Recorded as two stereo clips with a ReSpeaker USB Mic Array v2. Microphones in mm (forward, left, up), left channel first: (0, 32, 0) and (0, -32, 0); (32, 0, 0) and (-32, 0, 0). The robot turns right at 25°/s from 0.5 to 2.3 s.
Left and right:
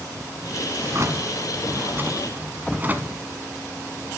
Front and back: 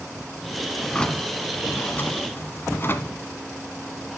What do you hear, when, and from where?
0.8 s a drawer: 75° right, 1.2 m; by 3.2 s 40° right, 1.2 m